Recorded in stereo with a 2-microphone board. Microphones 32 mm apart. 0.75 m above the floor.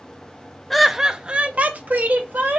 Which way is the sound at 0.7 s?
5° left (ahead or behind).